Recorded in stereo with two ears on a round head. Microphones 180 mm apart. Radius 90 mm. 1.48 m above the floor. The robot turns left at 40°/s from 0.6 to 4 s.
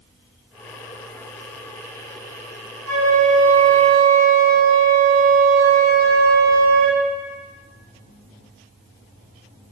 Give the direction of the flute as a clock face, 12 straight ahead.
3 o'clock.